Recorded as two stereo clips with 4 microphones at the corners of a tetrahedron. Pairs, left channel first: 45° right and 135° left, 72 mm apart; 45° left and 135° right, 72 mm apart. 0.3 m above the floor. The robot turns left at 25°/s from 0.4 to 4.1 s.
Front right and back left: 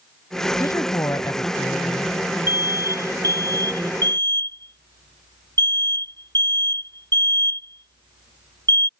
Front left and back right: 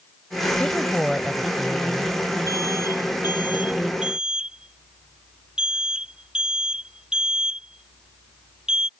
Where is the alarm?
170° right; by 8.9 s 145° left.